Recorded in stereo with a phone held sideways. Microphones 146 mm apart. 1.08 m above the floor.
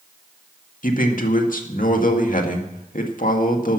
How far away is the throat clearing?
I don't hear throat clearing.